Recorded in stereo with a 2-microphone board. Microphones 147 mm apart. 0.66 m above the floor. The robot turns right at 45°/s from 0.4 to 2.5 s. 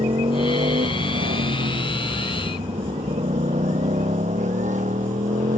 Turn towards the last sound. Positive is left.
turn(degrees=-60)  # may be behind; listen again after turning